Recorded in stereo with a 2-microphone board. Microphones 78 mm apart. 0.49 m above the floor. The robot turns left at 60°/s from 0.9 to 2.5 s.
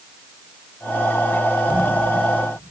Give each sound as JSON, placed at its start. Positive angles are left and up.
{"t": 1.7, "sound": "a whoosh", "side_deg": -15, "distance_m": 4.0}